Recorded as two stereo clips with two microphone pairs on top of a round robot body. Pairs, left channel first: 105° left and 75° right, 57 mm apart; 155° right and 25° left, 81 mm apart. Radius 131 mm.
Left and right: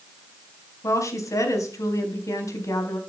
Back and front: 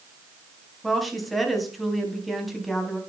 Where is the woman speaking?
115° left, 4 m.